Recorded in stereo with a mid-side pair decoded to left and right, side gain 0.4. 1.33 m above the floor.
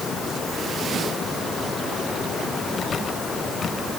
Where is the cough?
No cough in this recording.